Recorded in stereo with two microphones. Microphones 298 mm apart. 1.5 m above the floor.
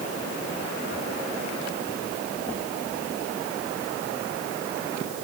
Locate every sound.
Only background noise.